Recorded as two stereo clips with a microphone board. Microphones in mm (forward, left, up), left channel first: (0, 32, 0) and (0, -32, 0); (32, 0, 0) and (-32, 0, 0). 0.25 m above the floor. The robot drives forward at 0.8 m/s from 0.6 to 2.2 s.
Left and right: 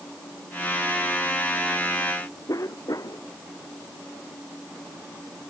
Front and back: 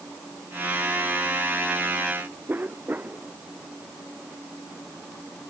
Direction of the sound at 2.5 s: 120° left.